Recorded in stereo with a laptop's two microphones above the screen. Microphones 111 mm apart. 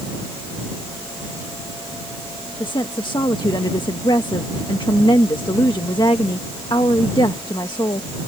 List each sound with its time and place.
2.6 s a woman speaking: 45° left (ahead or behind)